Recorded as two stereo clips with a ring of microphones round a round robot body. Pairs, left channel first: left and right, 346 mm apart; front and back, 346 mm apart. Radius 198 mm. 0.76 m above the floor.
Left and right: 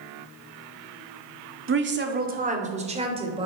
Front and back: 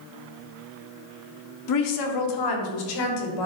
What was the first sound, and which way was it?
A woman speaking, 35° right.